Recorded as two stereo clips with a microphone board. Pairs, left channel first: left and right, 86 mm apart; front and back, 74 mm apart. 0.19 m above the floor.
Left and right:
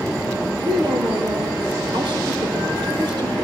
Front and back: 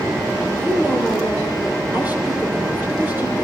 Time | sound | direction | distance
0.6 | a woman speaking | 115° right | 4.5 m